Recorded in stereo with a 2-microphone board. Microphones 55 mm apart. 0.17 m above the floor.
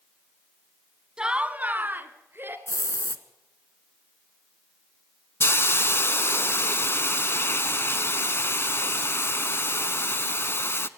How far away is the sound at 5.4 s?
About 0.6 m.